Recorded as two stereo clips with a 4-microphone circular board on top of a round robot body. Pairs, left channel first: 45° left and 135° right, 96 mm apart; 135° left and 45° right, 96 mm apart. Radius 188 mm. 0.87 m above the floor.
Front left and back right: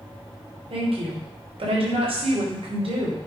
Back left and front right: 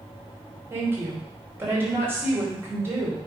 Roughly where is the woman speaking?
Behind right.